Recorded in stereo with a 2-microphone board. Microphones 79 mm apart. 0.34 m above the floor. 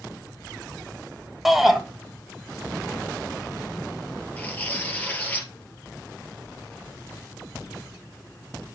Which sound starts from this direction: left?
Tearing paper, at 4.4 s.